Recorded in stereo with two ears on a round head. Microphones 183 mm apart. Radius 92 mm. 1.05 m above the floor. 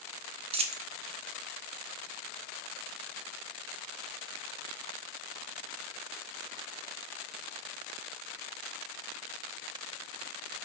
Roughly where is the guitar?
No guitar in this recording.